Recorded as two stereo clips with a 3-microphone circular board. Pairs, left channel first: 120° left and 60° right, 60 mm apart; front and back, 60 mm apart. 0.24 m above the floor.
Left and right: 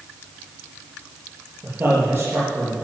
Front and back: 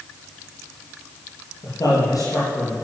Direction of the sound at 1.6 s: 10° right.